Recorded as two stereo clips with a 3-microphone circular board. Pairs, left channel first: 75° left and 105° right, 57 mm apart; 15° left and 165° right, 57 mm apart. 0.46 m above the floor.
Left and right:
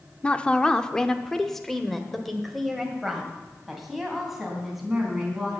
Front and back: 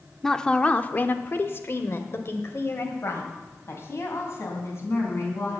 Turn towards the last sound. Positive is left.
turn(degrees=-20)